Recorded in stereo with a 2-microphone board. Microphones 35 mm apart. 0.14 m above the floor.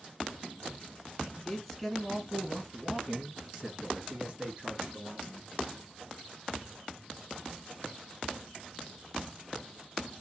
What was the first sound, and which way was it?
A man speaking, 10° left (ahead or behind).